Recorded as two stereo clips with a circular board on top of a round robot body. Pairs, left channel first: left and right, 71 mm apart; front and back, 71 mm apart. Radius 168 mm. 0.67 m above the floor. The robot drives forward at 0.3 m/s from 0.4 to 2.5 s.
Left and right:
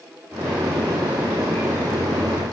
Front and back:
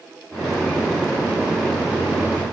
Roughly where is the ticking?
No ticking in this recording.